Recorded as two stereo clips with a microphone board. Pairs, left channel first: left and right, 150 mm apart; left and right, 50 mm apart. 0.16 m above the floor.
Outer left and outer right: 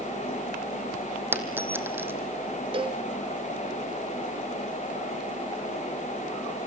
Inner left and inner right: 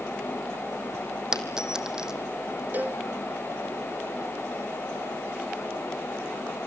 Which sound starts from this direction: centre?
A dropped coin, at 1.3 s.